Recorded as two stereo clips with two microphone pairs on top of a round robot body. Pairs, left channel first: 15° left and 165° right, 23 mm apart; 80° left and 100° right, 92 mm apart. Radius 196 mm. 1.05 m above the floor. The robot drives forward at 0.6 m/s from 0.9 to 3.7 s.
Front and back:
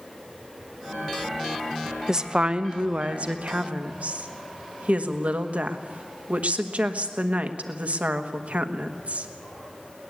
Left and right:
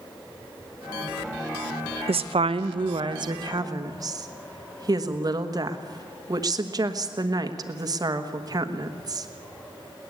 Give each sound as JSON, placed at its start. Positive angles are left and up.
{"t": 2.1, "sound": "a woman speaking", "azimuth_deg": -100, "distance_m": 0.8}